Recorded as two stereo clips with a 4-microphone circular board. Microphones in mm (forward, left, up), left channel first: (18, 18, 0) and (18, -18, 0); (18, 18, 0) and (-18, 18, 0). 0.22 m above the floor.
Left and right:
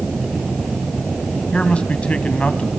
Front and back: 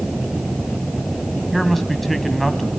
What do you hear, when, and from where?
1.5 s a man speaking: 90° left, 1.4 m